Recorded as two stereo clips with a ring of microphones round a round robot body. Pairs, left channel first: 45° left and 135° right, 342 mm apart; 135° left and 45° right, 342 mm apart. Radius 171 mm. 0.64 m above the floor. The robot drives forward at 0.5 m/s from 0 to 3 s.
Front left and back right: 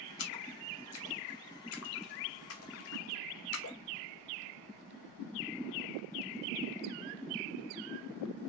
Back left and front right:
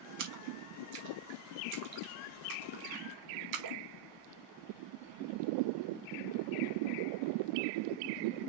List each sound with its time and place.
0.2 s a splash: 5° right, 3 m; by 3.8 s 10° right, 1.7 m